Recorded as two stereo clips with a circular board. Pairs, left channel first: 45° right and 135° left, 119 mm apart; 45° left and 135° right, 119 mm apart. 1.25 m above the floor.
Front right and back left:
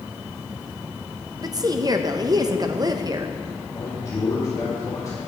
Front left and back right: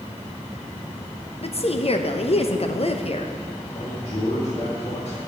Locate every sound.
1.4 s a woman speaking: 80° left, 0.7 m
3.7 s a man speaking: 20° left, 2.5 m